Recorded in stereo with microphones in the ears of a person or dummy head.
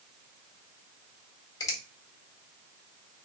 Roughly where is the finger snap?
Left.